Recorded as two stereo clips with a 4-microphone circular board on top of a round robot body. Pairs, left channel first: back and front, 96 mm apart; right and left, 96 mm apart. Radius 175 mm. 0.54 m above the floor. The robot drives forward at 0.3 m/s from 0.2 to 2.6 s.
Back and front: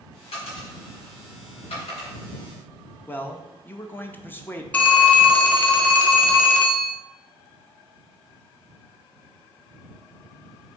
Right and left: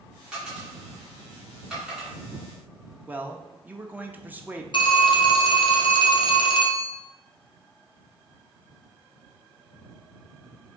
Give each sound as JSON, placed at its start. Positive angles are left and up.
{"t": 0.3, "sound": "a dropped coin", "azimuth_deg": 170, "distance_m": 2.0}
{"t": 3.1, "sound": "a man speaking", "azimuth_deg": 140, "distance_m": 0.7}
{"t": 4.7, "sound": "a phone ringing", "azimuth_deg": -105, "distance_m": 0.9}